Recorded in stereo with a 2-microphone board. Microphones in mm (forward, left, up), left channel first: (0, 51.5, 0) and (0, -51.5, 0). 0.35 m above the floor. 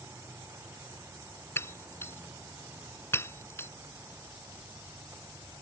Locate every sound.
1.6 s breaking glass: 25° left (ahead or behind)